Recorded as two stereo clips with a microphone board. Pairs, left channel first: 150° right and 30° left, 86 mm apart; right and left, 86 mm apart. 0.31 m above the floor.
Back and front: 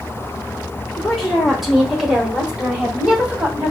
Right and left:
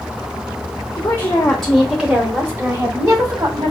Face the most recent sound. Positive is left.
turn(degrees=100)